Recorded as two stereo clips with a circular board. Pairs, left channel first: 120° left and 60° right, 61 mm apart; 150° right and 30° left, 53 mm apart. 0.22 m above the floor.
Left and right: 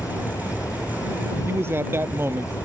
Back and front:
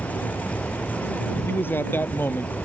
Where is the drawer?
I don't hear a drawer.